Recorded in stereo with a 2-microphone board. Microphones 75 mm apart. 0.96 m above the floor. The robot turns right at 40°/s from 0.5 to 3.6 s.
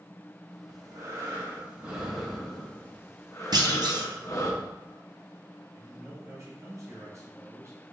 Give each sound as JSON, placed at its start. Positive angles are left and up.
{"t": 0.7, "sound": "breathing", "azimuth_deg": -65, "distance_m": 1.0}
{"t": 3.5, "sound": "a clunk", "side_deg": -65, "distance_m": 0.6}
{"t": 5.7, "sound": "a man speaking", "side_deg": -45, "distance_m": 2.0}